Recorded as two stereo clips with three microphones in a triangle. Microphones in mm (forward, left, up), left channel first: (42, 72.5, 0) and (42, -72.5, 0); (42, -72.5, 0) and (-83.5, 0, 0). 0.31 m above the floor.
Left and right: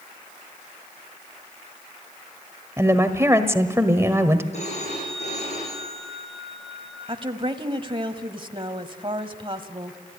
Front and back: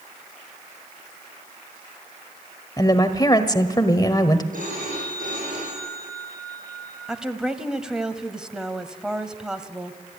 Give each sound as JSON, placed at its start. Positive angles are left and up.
{"t": 2.8, "sound": "a woman speaking", "azimuth_deg": -40, "distance_m": 1.4}
{"t": 4.5, "sound": "a phone ringing", "azimuth_deg": 130, "distance_m": 8.0}
{"t": 7.1, "sound": "a woman speaking", "azimuth_deg": -125, "distance_m": 1.4}